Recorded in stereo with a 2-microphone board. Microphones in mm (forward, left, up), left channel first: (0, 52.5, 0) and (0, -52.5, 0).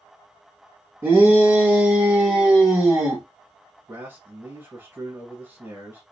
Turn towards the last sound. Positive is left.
turn(degrees=-20)  # may be behind; listen again after turning